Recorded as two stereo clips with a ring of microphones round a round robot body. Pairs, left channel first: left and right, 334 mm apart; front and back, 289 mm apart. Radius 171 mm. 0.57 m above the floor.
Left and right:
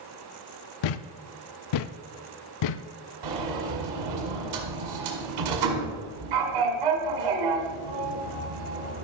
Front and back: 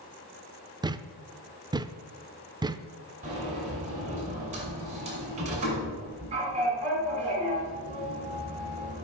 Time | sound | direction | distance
0.8 | a thud | 100° left | 0.5 m
3.2 | a sliding door | 110° right | 1.8 m